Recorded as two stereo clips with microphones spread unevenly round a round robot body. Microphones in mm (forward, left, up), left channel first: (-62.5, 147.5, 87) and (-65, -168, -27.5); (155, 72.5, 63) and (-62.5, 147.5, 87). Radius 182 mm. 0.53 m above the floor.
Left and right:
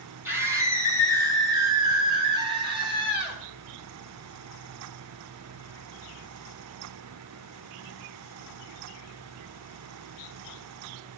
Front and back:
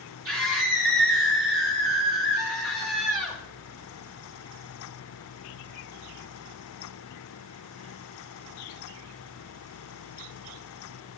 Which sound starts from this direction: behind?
A scream, at 0.2 s.